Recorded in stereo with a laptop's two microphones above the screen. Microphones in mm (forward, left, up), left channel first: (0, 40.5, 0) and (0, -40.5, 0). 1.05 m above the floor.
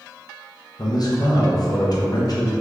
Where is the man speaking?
50° left (ahead or behind), 0.6 m.